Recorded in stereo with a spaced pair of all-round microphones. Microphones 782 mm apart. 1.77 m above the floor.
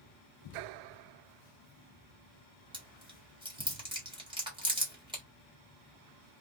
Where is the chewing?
5° right (ahead or behind), 1.4 m.